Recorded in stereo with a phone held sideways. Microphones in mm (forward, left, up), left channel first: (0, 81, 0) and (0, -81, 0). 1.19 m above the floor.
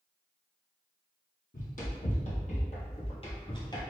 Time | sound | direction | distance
1.5 | running footsteps | 55° left (ahead or behind) | 2.0 m